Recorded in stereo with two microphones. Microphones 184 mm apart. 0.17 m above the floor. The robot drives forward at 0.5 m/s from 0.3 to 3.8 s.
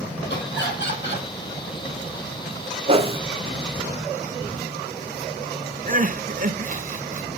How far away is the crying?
About 0.7 m.